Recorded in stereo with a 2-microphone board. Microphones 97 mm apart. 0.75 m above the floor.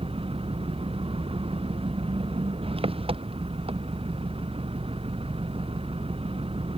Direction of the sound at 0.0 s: 75° right (ahead or behind).